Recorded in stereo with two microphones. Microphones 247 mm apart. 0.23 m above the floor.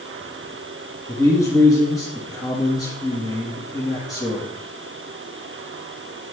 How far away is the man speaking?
About 3.5 m.